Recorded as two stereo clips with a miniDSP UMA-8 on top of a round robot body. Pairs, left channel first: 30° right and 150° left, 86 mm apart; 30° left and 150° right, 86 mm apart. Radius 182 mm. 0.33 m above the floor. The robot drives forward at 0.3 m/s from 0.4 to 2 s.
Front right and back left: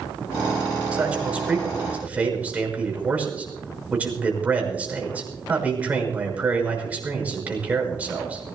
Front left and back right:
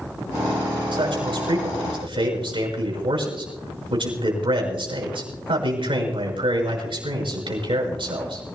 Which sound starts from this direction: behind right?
A man speaking, at 0.9 s.